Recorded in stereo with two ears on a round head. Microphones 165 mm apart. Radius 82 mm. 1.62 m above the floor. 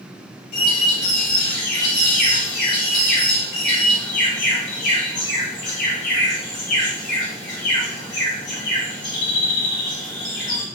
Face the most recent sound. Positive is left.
turn(degrees=50)  # may be behind; listen again after turning